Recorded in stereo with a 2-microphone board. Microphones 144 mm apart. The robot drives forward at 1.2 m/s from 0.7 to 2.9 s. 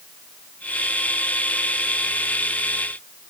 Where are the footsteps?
I don't hear footsteps.